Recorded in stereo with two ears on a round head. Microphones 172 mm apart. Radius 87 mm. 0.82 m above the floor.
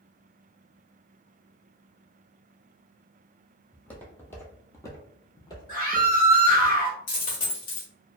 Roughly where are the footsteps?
Centre.